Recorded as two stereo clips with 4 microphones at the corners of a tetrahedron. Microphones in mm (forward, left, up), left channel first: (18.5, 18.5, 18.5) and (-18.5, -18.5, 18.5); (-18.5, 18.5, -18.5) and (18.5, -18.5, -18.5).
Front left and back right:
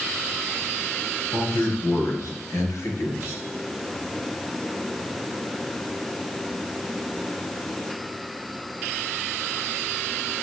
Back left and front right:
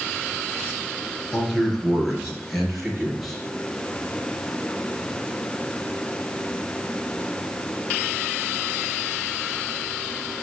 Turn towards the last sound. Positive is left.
turn(degrees=40)